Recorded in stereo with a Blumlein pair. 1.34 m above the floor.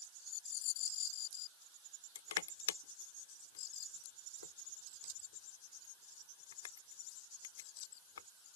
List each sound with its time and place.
2.1 s crushing: 60° left